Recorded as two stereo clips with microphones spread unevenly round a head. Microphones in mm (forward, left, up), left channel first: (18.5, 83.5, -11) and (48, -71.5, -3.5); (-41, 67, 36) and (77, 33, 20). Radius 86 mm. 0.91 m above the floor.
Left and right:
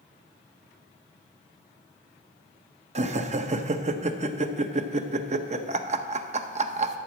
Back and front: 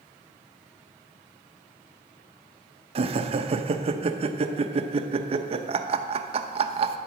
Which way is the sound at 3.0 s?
35° right.